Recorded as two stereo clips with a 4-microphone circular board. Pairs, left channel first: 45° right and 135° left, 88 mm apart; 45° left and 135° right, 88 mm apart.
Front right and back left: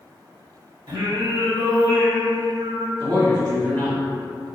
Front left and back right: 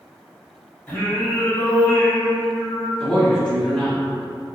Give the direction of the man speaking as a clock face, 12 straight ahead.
8 o'clock.